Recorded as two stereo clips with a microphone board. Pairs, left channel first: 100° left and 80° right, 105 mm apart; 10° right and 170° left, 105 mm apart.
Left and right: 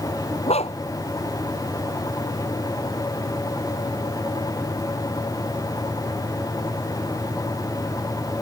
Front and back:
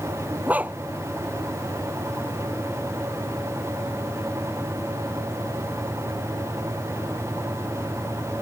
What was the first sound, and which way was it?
A dog barking, 95° left.